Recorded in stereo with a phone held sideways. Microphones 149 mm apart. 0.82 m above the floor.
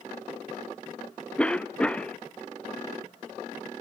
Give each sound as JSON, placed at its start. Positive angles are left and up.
{"t": 1.4, "sound": "a cough", "side_deg": 10, "distance_m": 0.5}